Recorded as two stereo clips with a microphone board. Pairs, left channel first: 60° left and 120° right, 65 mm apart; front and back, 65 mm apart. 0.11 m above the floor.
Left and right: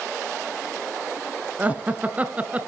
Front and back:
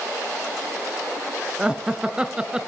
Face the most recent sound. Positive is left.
turn(degrees=-125)